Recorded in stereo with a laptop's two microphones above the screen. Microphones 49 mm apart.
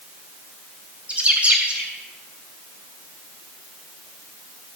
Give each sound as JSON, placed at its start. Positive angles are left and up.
{"t": 1.1, "sound": "a bird", "side_deg": -25, "distance_m": 3.0}